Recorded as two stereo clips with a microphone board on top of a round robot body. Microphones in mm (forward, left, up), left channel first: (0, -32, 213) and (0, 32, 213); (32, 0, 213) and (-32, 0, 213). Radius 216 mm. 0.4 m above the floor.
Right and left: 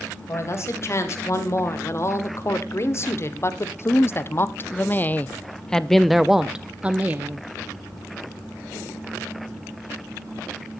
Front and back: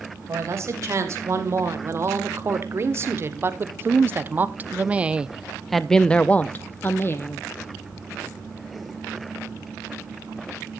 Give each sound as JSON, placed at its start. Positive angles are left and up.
{"t": 0.3, "sound": "a man speaking", "azimuth_deg": -135, "distance_m": 3.0}